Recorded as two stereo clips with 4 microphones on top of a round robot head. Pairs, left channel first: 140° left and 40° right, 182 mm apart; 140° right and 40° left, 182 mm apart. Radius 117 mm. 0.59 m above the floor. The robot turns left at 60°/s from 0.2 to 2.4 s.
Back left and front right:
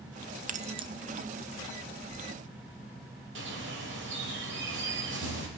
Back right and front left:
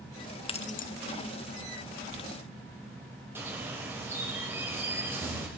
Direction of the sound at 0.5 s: 80° right.